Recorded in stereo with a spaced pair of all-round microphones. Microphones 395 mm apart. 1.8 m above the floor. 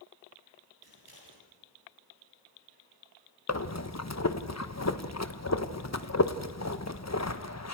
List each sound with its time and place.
0.8 s scissors: 60° left (ahead or behind), 9.5 m
3.5 s breathing: 40° left (ahead or behind), 1.2 m